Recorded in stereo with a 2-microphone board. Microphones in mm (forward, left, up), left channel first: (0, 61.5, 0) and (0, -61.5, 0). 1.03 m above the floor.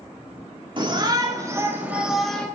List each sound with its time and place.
0.8 s a shout: 40° right (ahead or behind), 2.5 m; by 2.5 s 10° left (ahead or behind), 1.8 m